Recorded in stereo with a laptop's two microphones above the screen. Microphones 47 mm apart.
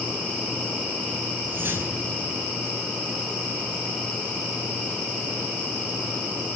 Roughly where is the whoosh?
Right.